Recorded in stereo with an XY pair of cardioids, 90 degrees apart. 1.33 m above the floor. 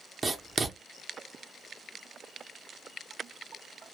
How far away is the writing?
About 0.9 m.